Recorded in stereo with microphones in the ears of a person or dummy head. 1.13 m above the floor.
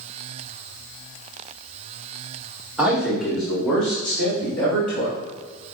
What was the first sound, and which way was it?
A man speaking, 10° right (ahead or behind).